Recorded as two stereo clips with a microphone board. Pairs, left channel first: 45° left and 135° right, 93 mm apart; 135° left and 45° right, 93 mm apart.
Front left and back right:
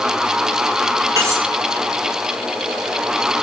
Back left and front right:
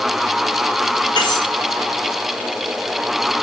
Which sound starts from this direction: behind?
Cutlery clinking, at 1.2 s.